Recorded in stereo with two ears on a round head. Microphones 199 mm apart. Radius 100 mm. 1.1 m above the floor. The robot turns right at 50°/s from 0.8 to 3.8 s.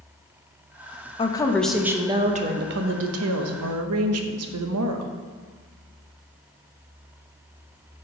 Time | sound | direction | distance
1.2 | a woman speaking | 155° left | 0.9 m